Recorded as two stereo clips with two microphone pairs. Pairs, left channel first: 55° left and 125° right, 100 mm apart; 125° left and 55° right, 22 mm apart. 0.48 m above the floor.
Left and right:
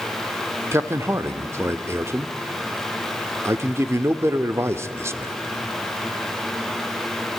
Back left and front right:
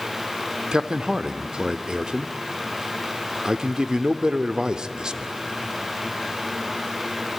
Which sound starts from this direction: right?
A man speaking, at 0.7 s.